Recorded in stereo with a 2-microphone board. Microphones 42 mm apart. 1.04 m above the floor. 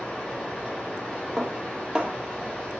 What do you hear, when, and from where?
0.0 s running water: 20° left (ahead or behind), 5 m
1.4 s dishes clattering: 15° right (ahead or behind), 1.3 m